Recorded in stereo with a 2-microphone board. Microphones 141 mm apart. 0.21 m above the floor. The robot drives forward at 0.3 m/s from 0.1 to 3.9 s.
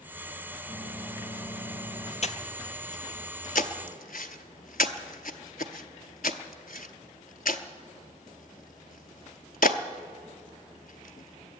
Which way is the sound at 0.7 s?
60° left (ahead or behind).